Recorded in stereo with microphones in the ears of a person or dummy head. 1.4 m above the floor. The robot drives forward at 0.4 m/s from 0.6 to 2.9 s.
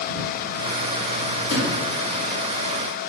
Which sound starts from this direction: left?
A sliding door, at 1.5 s.